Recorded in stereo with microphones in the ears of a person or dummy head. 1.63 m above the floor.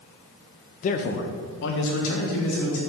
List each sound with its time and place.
0.8 s a man speaking: 40° left (ahead or behind), 0.5 m; by 2.8 s 75° left (ahead or behind), 1.6 m